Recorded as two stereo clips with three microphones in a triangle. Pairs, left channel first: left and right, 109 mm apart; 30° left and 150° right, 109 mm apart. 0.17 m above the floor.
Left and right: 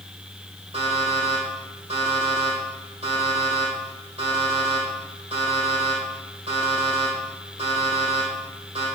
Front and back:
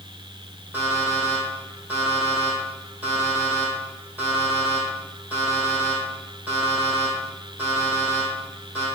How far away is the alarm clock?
About 4 m.